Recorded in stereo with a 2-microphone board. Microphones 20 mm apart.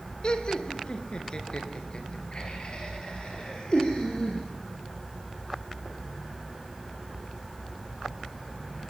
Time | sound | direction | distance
0.2 | laughter | 50° left (ahead or behind) | 2 m